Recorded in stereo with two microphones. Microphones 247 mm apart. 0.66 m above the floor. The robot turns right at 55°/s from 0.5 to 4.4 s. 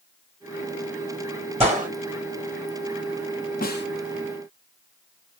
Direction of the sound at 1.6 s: 25° right (ahead or behind).